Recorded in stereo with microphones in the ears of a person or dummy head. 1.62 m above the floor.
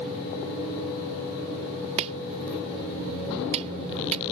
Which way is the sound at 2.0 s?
35° right (ahead or behind).